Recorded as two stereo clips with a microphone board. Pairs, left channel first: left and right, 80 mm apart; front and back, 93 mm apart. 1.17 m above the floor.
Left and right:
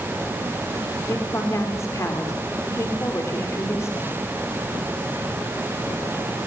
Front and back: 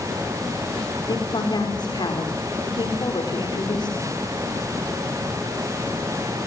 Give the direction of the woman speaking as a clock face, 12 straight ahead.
11 o'clock.